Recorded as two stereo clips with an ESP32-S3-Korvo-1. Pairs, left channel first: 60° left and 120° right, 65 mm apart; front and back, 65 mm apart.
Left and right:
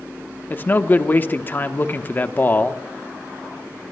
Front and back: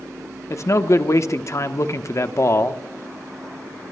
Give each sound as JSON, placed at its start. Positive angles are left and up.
{"t": 0.5, "sound": "a man speaking", "azimuth_deg": 10, "distance_m": 0.9}